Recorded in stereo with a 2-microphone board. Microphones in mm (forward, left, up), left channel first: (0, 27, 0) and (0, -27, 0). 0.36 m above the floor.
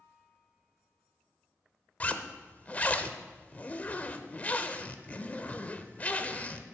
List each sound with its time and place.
2.0 s a zipper: 30° left (ahead or behind), 0.7 m